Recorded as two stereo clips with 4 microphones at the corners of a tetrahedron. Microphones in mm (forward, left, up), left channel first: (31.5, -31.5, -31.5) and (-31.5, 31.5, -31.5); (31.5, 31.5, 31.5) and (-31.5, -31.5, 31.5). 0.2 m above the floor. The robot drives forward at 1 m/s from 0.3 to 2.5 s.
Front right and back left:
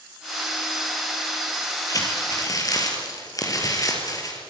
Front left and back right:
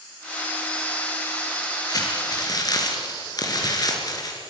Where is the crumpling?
Straight ahead, 5 m.